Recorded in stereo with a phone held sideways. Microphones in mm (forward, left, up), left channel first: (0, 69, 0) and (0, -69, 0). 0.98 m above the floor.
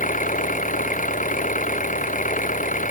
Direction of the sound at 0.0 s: 70° left (ahead or behind).